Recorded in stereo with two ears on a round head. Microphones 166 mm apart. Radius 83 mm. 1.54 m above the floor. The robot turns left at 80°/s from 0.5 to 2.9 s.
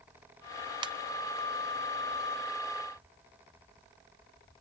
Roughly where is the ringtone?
Right.